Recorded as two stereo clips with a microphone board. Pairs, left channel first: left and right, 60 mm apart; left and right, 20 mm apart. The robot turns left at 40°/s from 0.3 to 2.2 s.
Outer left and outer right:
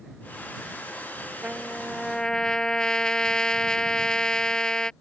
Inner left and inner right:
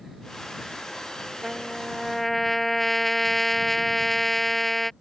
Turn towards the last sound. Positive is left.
turn(degrees=165)